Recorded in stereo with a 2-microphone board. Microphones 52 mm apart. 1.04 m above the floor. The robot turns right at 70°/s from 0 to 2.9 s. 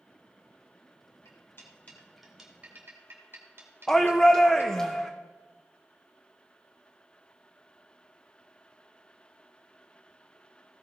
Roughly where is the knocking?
I don't hear knocking.